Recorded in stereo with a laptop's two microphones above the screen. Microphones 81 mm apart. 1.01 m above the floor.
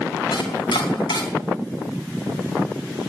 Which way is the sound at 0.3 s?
85° left.